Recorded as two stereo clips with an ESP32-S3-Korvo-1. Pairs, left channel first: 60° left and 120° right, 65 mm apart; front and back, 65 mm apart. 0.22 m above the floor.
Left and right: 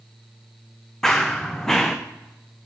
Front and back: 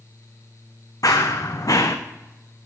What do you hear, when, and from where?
1.0 s running footsteps: 20° right, 0.7 m